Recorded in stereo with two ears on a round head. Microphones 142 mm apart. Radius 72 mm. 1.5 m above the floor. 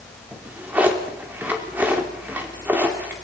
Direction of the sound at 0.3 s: 10° right (ahead or behind).